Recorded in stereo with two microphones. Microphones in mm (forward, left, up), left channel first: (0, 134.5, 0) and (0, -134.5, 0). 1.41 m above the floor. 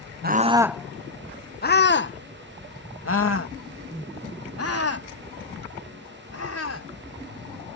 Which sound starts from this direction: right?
A scream, at 0.2 s.